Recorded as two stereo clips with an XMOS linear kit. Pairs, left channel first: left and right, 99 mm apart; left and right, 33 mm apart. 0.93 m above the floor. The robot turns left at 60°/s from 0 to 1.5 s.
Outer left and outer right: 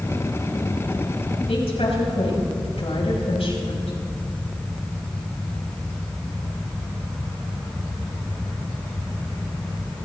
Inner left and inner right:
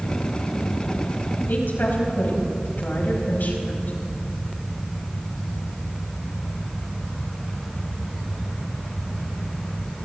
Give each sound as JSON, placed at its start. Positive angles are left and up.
{"t": 1.5, "sound": "a woman speaking", "side_deg": 85, "distance_m": 5.5}